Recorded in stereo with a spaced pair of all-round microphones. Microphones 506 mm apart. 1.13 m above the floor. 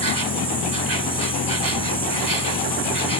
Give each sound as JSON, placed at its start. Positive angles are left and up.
{"t": 0.0, "sound": "an insect", "side_deg": -40}